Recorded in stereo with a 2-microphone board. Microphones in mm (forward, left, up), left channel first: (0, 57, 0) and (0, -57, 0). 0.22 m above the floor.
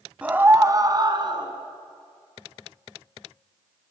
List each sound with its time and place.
0.2 s a scream: 10° right (ahead or behind), 1.4 m; by 1.5 s 45° right (ahead or behind), 3 m